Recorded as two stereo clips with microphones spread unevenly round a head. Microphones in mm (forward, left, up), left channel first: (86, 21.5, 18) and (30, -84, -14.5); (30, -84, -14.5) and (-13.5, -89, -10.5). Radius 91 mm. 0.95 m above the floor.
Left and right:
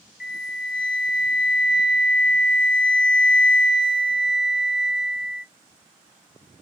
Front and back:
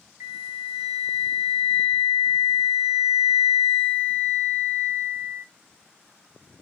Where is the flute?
110° left, 0.6 m.